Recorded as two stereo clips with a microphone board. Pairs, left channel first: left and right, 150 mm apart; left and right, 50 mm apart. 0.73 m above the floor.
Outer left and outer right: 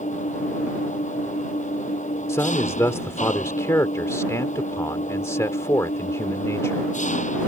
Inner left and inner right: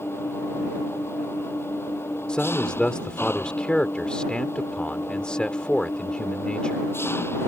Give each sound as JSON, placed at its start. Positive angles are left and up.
{"t": 0.0, "sound": "an engine running", "side_deg": 55}
{"t": 2.3, "sound": "a man speaking", "side_deg": 20}